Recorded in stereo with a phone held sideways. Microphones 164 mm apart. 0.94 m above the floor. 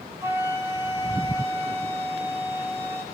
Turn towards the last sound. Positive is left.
turn(degrees=-15)  # may be behind; listen again after turning